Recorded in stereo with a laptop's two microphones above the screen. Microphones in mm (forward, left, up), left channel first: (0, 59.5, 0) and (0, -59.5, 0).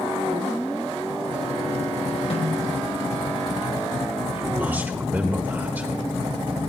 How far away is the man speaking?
About 1.5 m.